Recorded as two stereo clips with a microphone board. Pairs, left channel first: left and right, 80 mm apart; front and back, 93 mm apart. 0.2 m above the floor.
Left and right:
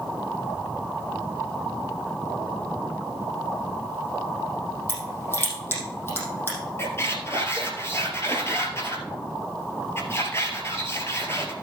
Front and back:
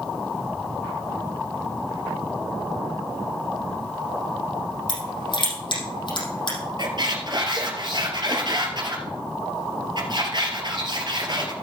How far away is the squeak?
About 2 m.